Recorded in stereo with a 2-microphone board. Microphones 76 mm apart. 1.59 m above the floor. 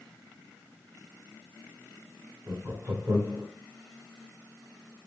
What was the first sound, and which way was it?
Laughter, 40° right (ahead or behind).